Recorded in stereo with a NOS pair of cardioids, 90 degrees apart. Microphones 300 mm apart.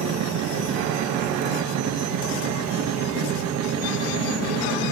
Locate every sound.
0.0 s a machine running: 60° right, 1.0 m